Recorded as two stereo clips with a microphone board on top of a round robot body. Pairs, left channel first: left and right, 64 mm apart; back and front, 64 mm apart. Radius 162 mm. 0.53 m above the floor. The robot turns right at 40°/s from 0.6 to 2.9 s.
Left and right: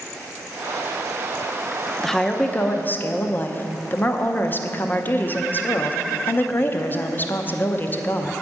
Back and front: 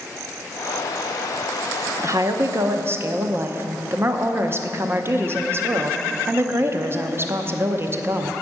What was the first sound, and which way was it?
A woman speaking, 5° left.